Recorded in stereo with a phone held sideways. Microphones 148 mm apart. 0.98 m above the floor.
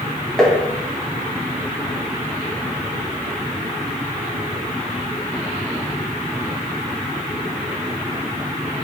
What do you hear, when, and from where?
0.4 s tapping: 5° left (ahead or behind), 0.7 m